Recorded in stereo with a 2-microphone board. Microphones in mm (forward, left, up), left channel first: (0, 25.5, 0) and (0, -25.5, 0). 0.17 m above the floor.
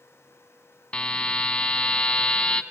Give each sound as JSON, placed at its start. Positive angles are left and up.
{"t": 0.9, "sound": "a buzzer", "side_deg": 20, "distance_m": 0.9}